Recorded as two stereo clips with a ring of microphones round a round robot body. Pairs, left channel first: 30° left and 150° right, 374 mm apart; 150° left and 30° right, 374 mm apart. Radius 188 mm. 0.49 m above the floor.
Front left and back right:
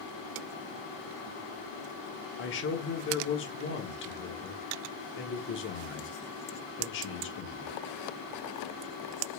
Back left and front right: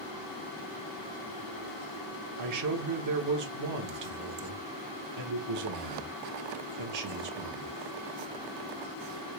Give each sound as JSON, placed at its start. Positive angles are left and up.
{"t": 2.4, "sound": "a man speaking", "azimuth_deg": -20, "distance_m": 0.9}